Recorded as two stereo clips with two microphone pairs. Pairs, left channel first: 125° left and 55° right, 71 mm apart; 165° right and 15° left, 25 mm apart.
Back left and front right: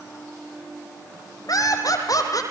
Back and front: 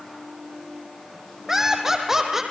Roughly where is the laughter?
Left.